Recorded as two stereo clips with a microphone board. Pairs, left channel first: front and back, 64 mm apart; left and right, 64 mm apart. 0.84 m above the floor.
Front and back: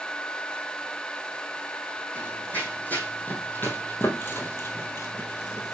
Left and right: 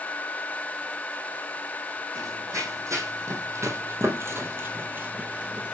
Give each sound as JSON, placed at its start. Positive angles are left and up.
{"t": 2.1, "sound": "running footsteps", "azimuth_deg": -65, "distance_m": 2.5}